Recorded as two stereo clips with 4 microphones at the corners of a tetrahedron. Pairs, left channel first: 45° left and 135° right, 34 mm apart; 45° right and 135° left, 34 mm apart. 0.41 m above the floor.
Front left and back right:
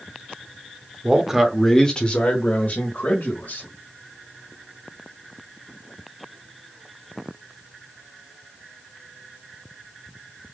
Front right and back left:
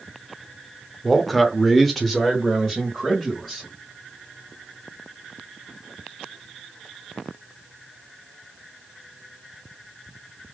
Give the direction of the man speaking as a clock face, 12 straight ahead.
4 o'clock.